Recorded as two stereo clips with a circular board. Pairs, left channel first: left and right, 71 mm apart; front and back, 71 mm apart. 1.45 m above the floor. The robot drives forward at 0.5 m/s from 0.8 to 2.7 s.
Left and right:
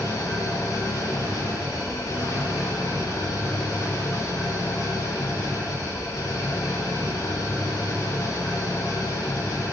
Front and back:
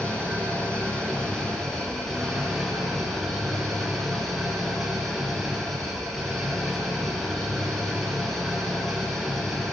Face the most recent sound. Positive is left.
turn(degrees=85)